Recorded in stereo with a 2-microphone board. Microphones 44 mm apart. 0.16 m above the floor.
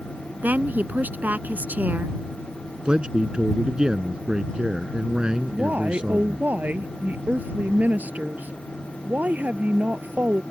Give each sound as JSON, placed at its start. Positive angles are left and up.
{"t": 0.4, "sound": "a woman speaking", "side_deg": -40}
{"t": 2.9, "sound": "a man speaking", "side_deg": -20}
{"t": 5.5, "sound": "a woman speaking", "side_deg": -40}